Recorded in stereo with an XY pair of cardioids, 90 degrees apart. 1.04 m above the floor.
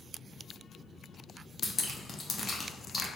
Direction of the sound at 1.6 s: 45° left.